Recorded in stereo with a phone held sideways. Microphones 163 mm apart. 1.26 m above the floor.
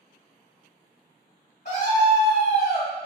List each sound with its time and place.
1.6 s a scream: 50° left (ahead or behind), 1.4 m